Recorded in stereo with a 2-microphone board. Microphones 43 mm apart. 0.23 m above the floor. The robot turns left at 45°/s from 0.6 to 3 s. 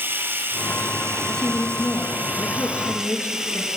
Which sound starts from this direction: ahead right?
Running water, at 0.0 s.